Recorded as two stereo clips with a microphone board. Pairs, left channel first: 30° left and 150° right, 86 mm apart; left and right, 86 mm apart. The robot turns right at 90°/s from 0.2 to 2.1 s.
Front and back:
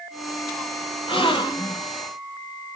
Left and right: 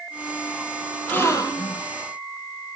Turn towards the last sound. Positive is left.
turn(degrees=110)